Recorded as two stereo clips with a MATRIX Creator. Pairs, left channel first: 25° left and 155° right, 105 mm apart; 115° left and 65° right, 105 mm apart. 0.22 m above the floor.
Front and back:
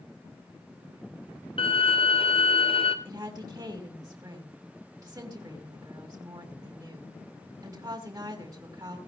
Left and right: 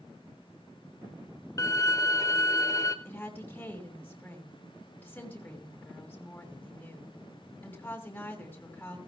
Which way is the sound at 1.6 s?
55° left.